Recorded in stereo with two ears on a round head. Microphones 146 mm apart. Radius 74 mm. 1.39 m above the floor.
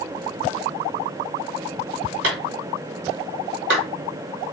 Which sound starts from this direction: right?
A clap, at 2.2 s.